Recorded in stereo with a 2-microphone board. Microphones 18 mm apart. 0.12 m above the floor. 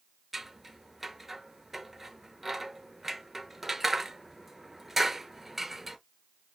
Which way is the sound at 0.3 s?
10° right (ahead or behind).